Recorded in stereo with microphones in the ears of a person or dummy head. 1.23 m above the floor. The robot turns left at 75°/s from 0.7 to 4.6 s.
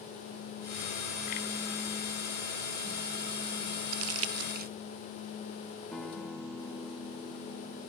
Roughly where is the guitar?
Centre.